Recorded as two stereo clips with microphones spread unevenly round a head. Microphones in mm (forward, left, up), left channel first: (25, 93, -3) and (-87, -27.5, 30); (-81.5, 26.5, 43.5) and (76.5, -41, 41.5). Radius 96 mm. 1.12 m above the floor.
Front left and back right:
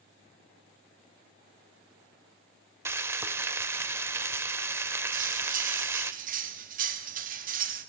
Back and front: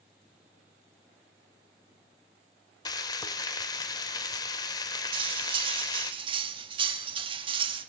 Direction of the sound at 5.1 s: 85° right.